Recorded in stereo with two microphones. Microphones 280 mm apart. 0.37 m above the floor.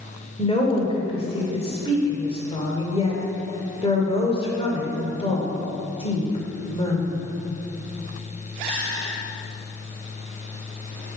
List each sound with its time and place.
0.4 s a woman speaking: 20° left (ahead or behind), 1.2 m